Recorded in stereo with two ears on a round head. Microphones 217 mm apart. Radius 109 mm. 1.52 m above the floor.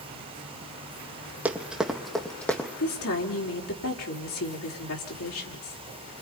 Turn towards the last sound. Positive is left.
turn(degrees=60)  # may be behind; listen again after turning